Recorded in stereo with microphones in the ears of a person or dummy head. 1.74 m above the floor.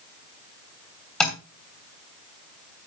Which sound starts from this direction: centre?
Tapping, at 1.2 s.